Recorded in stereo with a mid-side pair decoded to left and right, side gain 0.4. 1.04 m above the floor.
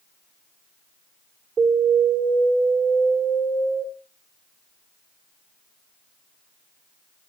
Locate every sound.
1.6 s an alarm: 65° right, 4 m